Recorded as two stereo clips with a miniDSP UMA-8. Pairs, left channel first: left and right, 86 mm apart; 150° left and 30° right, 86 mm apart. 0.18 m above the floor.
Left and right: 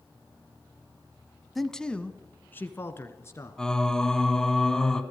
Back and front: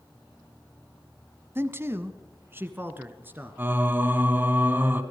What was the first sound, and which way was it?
A man speaking, straight ahead.